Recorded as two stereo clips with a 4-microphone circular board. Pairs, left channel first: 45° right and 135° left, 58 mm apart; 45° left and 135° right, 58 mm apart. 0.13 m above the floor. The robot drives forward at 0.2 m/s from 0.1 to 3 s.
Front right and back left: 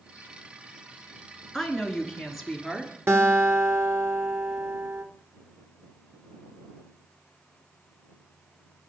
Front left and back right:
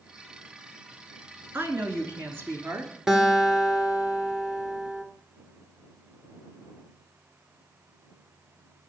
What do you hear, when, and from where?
1.5 s a woman speaking: 125° right, 1.3 m; by 2.9 s 140° right, 1.5 m
3.1 s a guitar: 145° left, 1.5 m